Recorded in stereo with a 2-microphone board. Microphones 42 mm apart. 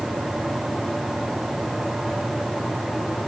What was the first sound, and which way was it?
Only background noise.